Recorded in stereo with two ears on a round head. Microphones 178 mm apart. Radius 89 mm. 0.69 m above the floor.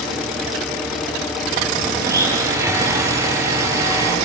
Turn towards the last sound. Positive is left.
turn(degrees=-15)  # may be behind; listen again after turning